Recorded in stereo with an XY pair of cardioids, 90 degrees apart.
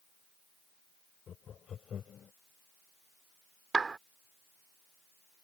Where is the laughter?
60° left.